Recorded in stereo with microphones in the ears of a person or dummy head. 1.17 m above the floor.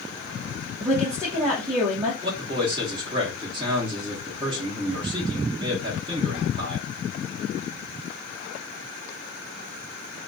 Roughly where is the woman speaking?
Centre.